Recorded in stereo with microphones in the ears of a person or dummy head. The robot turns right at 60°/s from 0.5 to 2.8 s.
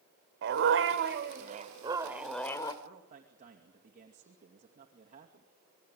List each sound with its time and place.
0.4 s a dog barking: 110° right, 2 m; by 2.7 s 25° left, 2 m
2.8 s a man speaking: 40° right (ahead or behind), 2.5 m